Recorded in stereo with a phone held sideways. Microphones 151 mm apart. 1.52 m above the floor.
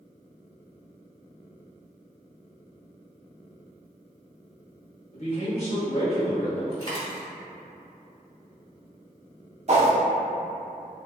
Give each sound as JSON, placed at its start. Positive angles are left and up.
{"t": 5.1, "sound": "a man speaking", "side_deg": 45, "distance_m": 1.2}
{"t": 6.7, "sound": "a dropped coin", "side_deg": 35, "distance_m": 1.6}
{"t": 9.7, "sound": "a whoosh", "side_deg": -50, "distance_m": 0.5}